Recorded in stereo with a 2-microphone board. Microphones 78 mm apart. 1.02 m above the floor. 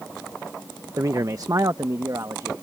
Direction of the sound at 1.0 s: 45° right (ahead or behind).